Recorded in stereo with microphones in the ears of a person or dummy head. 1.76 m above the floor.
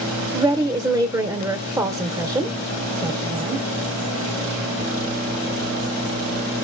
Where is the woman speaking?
10° right (ahead or behind), 0.5 m.